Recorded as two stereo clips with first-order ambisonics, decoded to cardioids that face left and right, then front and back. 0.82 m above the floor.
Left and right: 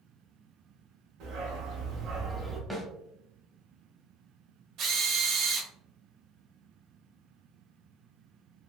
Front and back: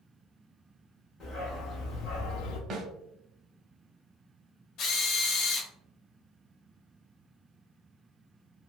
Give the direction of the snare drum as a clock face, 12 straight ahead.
6 o'clock.